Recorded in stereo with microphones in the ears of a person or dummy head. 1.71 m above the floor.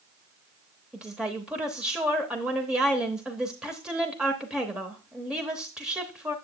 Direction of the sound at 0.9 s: 5° right (ahead or behind).